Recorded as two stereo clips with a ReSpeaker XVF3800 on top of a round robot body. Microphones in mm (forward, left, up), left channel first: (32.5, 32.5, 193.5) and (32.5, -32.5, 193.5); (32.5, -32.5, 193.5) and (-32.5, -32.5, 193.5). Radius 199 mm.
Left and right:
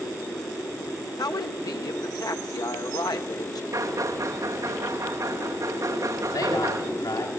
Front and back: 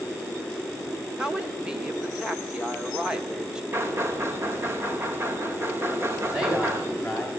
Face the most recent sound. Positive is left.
turn(degrees=95)